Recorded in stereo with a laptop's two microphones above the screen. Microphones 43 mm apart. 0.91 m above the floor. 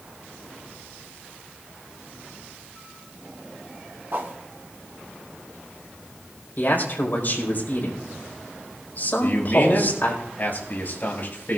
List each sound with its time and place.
4.1 s a whoosh: 50° right (ahead or behind), 2.5 m
6.6 s a man speaking: 50° left (ahead or behind), 4.5 m
9.2 s a man speaking: 45° left (ahead or behind), 6 m